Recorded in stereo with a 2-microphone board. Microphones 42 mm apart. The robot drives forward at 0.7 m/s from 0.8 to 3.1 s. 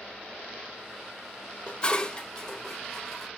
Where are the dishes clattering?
25° left (ahead or behind), 0.6 m; by 3.3 s 10° left (ahead or behind), 1.6 m.